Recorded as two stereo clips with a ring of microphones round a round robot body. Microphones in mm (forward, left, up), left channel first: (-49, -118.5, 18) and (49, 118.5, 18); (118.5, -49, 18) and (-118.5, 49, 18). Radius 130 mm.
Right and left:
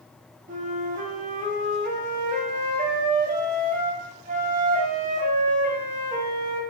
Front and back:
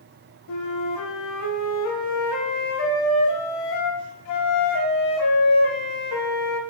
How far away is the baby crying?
No baby crying in this recording.